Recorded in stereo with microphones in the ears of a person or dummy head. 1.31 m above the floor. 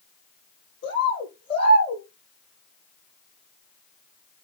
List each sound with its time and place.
0.8 s a bird: 80° left, 8.5 m